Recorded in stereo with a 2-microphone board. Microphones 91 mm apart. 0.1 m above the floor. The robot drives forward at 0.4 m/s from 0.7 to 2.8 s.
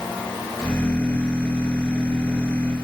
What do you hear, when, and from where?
Only background noise.